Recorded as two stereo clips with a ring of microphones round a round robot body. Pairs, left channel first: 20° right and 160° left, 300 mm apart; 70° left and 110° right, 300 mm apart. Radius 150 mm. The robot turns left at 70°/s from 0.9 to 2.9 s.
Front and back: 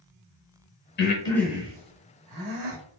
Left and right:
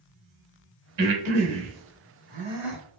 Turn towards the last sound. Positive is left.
turn(degrees=145)